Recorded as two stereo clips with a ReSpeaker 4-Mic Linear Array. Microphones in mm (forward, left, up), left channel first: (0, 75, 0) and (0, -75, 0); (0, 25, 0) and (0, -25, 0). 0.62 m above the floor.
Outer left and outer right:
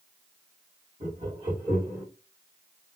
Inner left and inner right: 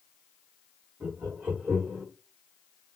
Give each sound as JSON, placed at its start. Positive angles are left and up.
{"t": 1.0, "sound": "laughter", "side_deg": -50, "distance_m": 1.7}